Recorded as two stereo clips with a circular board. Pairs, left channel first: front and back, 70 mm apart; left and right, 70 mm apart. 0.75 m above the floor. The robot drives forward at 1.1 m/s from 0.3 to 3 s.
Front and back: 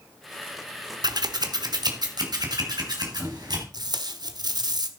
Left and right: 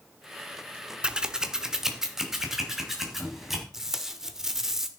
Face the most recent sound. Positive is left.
turn(degrees=-175)